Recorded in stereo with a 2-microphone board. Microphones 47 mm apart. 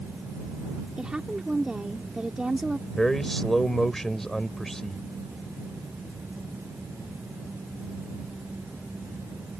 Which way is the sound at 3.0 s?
10° left (ahead or behind).